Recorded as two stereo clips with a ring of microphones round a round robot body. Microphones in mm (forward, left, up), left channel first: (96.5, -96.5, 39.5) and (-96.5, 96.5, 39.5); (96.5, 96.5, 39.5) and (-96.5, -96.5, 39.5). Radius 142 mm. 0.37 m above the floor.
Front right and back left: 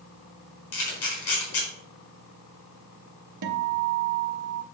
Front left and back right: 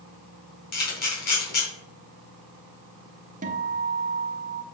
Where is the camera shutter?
10° right, 4 m.